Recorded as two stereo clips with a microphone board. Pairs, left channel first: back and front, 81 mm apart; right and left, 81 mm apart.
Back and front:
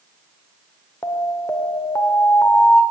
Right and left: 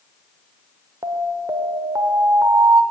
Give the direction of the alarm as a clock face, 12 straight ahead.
8 o'clock.